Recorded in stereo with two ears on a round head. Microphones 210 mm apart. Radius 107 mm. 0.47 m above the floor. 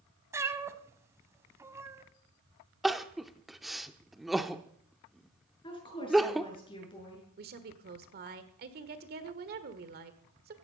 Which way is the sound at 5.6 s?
25° left (ahead or behind).